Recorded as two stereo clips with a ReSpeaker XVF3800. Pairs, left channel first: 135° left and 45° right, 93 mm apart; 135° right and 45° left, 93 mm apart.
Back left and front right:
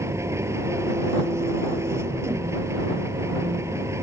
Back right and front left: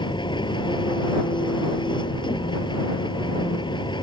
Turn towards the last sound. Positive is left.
turn(degrees=-105)